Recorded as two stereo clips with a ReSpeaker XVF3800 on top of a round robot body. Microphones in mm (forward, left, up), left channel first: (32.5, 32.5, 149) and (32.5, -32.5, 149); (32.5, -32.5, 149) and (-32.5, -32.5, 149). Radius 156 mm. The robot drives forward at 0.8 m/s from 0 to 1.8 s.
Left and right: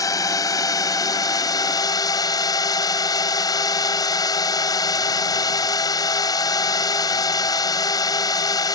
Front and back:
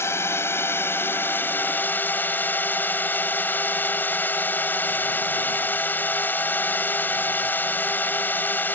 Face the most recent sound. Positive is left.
turn(degrees=65)